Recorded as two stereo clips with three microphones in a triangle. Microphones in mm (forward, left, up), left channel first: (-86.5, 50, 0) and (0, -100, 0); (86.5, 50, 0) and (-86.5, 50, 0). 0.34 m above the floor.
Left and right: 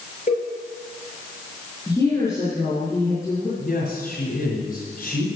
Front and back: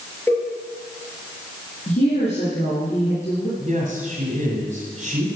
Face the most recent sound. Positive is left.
turn(degrees=140)